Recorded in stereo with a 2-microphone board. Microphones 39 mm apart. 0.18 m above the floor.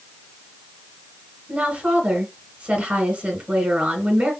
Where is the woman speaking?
35° right (ahead or behind), 2.5 m.